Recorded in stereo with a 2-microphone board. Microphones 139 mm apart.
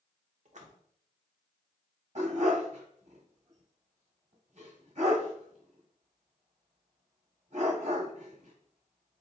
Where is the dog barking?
55° right (ahead or behind), 1.3 m.